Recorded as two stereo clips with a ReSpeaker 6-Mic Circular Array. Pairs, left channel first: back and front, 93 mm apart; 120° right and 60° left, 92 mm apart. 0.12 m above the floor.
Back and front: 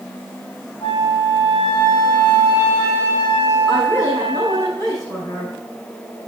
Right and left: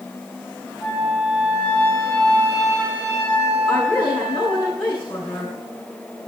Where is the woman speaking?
135° right, 6.5 m.